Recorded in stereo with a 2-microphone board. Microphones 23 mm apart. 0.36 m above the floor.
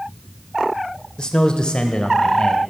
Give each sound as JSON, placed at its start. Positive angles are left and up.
{"t": 1.2, "sound": "a man speaking", "side_deg": 35, "distance_m": 0.9}